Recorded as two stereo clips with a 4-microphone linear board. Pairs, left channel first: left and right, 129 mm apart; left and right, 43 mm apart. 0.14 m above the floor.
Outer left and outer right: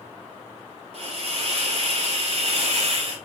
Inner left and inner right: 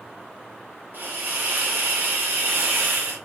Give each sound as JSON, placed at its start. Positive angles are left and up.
{"t": 0.9, "sound": "a hiss", "side_deg": -50, "distance_m": 1.7}